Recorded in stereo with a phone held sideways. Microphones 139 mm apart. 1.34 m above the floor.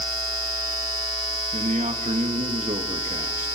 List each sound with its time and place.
1.5 s a man speaking: 60° right (ahead or behind), 2 m